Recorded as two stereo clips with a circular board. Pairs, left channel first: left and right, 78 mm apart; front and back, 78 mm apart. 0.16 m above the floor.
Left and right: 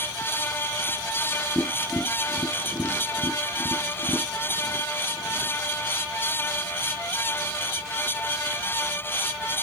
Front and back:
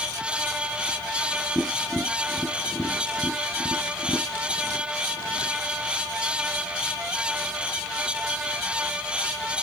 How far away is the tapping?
About 2 m.